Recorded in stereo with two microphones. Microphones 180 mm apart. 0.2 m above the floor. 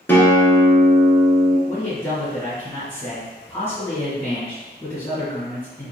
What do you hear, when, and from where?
0.1 s a guitar: 10° left (ahead or behind), 0.8 m
1.7 s a man speaking: 15° left (ahead or behind), 1.6 m